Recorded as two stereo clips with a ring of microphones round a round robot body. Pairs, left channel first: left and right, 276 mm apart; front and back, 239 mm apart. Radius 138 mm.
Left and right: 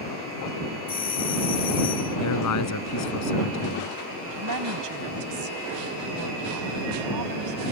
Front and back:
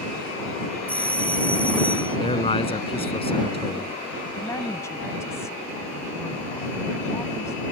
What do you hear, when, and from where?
0.9 s a doorbell: 75° left
2.2 s a man speaking: 65° left
4.2 s a woman speaking: 80° right